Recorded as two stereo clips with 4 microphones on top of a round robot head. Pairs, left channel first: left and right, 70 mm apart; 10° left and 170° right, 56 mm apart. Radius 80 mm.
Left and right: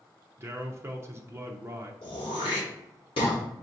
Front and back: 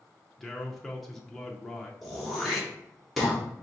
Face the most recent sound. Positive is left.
turn(degrees=100)